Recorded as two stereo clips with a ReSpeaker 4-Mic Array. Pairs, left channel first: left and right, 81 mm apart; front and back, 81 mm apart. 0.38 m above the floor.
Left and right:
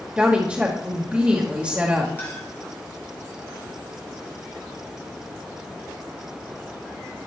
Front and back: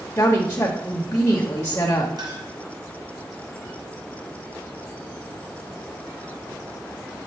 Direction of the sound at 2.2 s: 150° left.